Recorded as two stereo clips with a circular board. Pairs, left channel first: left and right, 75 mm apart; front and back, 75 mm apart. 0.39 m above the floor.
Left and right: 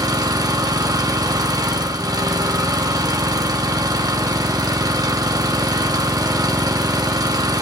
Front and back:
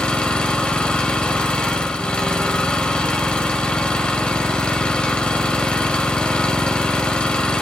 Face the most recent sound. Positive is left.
turn(degrees=-75)